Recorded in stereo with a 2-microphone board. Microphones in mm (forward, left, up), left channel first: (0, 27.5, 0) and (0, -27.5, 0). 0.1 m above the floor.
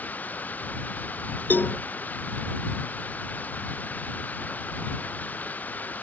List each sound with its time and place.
0.0 s running water: 30° left (ahead or behind)
1.5 s a cowbell: 35° left (ahead or behind)